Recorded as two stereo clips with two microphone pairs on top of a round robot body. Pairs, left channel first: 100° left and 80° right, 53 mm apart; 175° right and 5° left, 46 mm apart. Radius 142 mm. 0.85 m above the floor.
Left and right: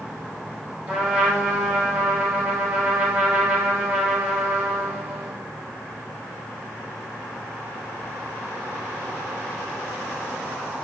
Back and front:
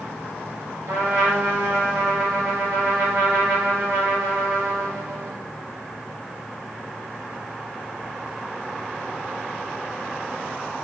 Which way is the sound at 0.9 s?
20° right.